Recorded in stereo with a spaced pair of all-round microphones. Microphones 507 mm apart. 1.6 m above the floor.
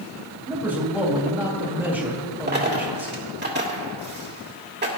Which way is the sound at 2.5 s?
20° right (ahead or behind).